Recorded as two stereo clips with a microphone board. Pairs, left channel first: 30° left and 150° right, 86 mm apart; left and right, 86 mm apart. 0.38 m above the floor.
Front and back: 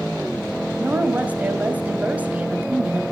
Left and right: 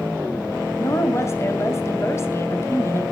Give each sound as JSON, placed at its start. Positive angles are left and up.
{"t": 0.8, "sound": "a woman speaking", "azimuth_deg": 140, "distance_m": 2.0}